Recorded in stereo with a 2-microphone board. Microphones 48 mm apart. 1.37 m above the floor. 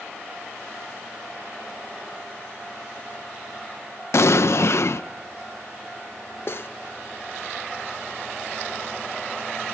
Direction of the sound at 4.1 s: 65° left (ahead or behind).